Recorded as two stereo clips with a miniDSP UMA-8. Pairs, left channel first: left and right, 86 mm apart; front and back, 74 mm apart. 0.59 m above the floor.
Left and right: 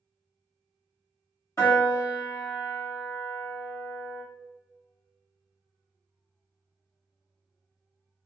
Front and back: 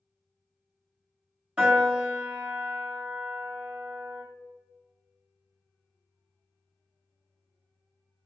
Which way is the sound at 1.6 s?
110° left.